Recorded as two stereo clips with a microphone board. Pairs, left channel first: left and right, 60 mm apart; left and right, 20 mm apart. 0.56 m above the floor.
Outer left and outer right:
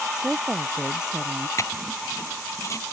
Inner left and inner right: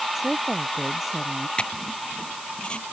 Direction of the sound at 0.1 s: 10° right (ahead or behind).